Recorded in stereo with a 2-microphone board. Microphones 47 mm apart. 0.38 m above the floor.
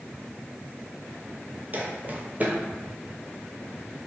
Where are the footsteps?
40° right (ahead or behind), 0.6 m.